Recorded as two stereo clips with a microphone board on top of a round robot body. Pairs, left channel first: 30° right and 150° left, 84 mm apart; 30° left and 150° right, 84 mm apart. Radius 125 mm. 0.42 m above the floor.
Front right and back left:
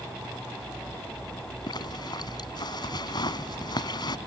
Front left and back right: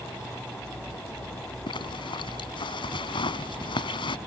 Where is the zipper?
5° left.